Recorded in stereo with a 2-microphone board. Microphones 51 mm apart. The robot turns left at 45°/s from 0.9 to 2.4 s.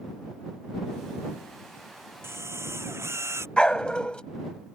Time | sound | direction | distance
2.2 | a drill | 50° right (ahead or behind) | ?
3.6 | a dog barking | 20° left (ahead or behind) | ?